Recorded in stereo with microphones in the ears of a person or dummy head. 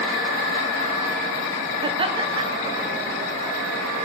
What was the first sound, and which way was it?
Laughter, 35° right (ahead or behind).